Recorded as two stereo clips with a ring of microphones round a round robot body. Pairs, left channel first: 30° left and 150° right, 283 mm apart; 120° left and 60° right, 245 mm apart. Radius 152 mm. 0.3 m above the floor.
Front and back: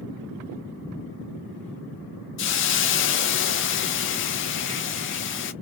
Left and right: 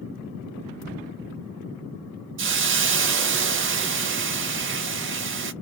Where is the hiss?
20° right, 0.5 m.